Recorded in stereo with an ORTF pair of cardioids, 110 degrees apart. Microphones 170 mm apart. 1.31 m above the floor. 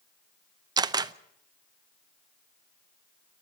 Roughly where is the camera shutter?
Ahead right.